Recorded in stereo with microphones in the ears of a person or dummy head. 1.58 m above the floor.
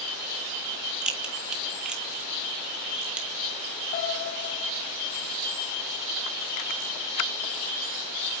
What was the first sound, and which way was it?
A crack, 5° right (ahead or behind).